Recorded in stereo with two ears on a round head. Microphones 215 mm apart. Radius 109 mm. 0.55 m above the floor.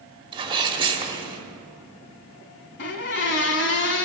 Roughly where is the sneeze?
Right.